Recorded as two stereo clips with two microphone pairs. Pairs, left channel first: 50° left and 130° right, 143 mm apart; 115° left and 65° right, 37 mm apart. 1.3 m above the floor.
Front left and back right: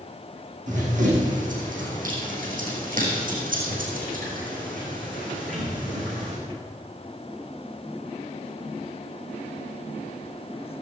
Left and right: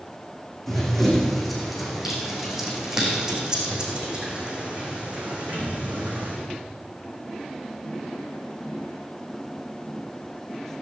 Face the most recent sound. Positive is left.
turn(degrees=-105)